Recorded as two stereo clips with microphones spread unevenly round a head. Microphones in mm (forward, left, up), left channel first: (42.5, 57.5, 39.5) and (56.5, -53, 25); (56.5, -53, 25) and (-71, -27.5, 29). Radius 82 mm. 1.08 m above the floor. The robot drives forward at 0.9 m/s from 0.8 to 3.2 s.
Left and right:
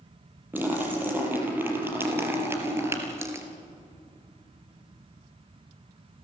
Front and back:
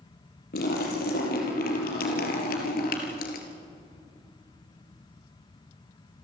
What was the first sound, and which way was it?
A splash, 10° right.